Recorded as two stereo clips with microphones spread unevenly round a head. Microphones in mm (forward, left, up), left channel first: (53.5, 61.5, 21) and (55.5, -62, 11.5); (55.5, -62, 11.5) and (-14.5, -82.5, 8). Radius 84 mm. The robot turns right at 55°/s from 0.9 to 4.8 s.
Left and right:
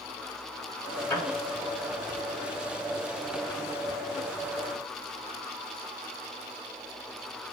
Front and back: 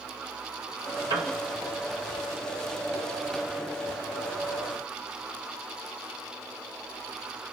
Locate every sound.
1.1 s a piano: 165° left, 1.0 m; by 1.4 s straight behind, 1.0 m